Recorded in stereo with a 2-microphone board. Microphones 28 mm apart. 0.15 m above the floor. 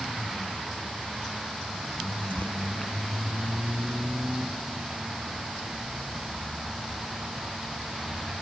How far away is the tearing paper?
About 1.3 m.